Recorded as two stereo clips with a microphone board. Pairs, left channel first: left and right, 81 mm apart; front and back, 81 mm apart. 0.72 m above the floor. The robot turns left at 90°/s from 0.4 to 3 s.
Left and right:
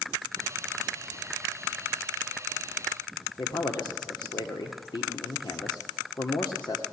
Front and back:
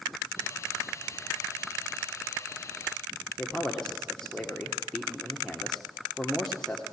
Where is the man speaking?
80° left, 1.6 m.